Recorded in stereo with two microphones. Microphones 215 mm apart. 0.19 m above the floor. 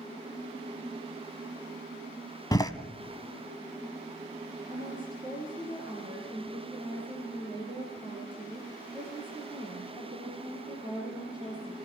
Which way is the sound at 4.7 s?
20° right (ahead or behind).